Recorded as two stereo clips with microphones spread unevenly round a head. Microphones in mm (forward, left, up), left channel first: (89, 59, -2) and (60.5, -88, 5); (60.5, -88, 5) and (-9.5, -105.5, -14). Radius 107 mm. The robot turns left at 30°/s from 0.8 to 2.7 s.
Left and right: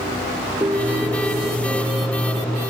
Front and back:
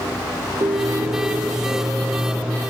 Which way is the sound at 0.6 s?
175° right.